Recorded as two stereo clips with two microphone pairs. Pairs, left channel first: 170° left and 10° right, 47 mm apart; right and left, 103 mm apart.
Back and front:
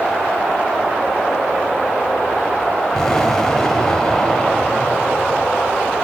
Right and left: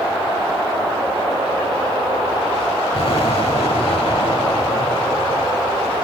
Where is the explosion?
110° right, 4 m.